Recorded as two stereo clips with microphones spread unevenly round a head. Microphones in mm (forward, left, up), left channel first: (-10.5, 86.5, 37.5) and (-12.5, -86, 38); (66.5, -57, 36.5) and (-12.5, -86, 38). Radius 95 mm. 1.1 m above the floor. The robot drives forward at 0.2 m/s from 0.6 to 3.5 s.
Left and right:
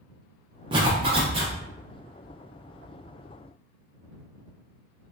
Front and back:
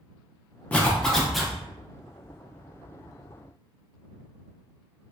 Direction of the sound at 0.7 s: 45° right.